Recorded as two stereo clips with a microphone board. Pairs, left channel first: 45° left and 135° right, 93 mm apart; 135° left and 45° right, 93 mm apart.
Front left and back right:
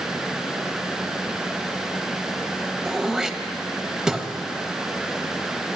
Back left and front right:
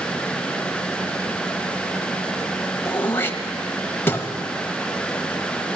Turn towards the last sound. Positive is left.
turn(degrees=150)